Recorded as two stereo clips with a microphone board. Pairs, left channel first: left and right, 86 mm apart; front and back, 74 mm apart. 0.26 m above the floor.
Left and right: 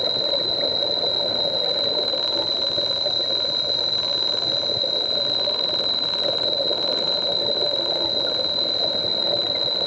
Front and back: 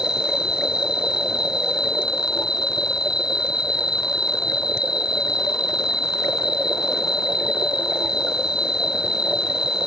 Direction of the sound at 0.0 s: 5° right.